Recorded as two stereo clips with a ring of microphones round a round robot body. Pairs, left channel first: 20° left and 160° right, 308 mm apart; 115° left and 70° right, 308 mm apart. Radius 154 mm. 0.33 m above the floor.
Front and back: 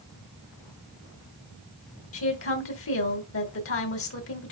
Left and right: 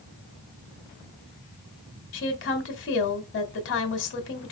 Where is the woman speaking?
65° left, 2.5 m.